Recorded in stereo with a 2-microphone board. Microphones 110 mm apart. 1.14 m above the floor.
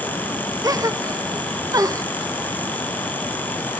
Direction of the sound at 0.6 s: 30° right (ahead or behind).